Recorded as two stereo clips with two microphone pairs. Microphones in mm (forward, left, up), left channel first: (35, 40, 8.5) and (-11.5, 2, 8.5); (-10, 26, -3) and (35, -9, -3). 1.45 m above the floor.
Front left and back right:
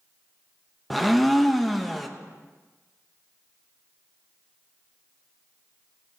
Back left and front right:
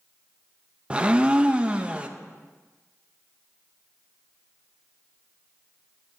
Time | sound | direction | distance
0.9 | a blender | 40° right | 0.6 m